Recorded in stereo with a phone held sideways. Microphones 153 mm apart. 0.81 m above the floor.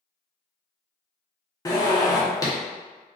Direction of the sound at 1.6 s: 20° left (ahead or behind).